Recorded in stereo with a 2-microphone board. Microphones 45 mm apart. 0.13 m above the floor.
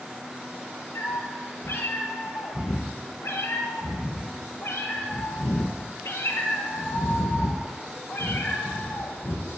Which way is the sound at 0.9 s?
65° left (ahead or behind).